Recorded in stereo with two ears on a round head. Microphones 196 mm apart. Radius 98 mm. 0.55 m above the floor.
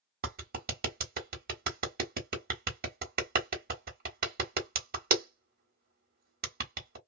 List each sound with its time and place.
0.2 s a clap: 45° right (ahead or behind), 1.2 m